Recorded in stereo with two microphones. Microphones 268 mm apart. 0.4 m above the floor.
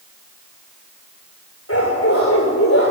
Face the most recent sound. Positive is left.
turn(degrees=55)  # may be behind; listen again after turning